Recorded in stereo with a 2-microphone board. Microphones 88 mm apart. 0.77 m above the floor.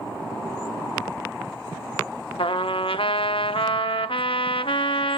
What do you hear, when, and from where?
2.4 s a trumpet: 90° left, 0.6 m